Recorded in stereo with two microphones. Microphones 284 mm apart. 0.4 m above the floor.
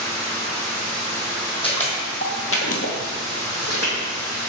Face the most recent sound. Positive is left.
turn(degrees=55)  # may be behind; listen again after turning